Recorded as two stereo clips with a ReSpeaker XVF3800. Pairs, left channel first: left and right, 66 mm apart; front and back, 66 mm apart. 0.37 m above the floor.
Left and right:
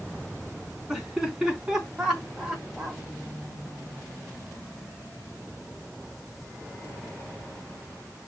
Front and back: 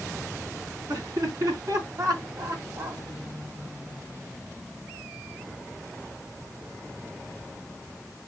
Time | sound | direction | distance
0.9 | laughter | 170° right | 4.5 m